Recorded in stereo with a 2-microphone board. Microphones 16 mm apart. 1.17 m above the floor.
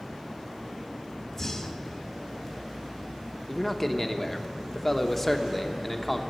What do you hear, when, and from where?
1.3 s breathing: 25° left (ahead or behind), 1.2 m
3.5 s a man speaking: 5° left (ahead or behind), 1.0 m